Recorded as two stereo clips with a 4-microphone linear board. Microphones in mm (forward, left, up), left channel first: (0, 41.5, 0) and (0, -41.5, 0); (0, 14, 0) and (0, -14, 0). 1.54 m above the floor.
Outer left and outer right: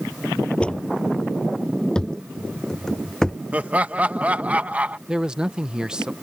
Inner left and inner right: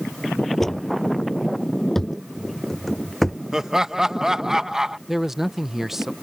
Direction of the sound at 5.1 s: 10° right (ahead or behind).